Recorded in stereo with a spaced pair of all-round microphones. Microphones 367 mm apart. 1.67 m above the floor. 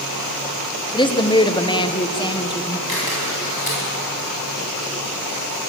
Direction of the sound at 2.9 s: 75° left (ahead or behind).